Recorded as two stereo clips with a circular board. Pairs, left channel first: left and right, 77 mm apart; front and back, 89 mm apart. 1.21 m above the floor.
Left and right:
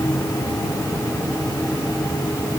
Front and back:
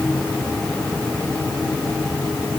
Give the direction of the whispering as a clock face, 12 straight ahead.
No whispering in this recording.